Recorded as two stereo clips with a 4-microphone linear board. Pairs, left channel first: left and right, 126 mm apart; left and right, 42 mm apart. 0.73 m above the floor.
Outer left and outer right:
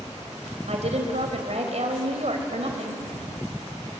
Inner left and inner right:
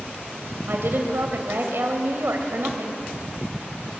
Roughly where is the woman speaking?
Right.